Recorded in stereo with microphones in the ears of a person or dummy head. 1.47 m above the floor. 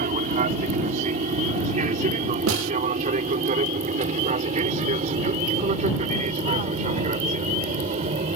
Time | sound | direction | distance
0.0 | an aircraft | 45° right (ahead or behind) | ?
2.5 | a snare drum | 85° right | ?